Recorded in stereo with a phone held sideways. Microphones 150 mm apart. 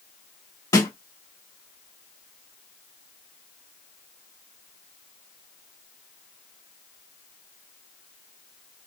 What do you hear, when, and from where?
0.7 s a snare drum: 25° left (ahead or behind), 1.2 m